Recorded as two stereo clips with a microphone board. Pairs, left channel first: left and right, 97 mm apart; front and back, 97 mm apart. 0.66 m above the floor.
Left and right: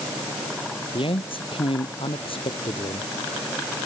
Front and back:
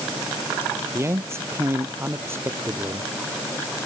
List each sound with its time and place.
0.9 s a man speaking: 120° left; by 3.1 s 115° left